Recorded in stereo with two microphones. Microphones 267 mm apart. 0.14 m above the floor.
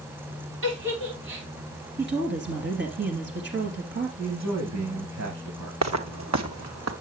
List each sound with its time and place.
0.6 s a giggle: 50° right (ahead or behind), 7.5 m
2.0 s a woman speaking: 45° right (ahead or behind), 2.5 m
4.2 s a man speaking: 75° right (ahead or behind), 6.5 m
5.8 s footsteps: 80° right, 1.7 m; by 6.9 s 70° right (ahead or behind), 1.9 m